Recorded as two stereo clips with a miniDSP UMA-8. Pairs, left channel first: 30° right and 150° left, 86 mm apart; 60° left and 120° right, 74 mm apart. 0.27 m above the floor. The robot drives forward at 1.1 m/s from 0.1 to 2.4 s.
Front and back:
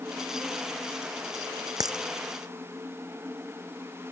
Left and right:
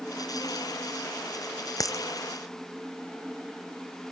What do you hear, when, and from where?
1.8 s a dropped coin: 105° left; by 2.0 s 110° left